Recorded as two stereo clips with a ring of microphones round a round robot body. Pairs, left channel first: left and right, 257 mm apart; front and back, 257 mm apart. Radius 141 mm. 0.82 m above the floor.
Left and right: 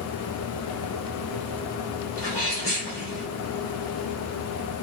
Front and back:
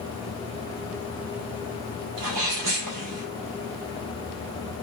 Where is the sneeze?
170° left, 2.5 m.